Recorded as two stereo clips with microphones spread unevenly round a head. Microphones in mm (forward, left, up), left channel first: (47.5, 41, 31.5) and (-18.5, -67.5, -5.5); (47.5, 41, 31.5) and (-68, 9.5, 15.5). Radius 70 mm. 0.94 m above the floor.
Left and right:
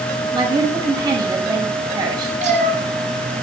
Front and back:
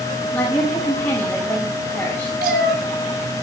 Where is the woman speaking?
60° right, 6 m.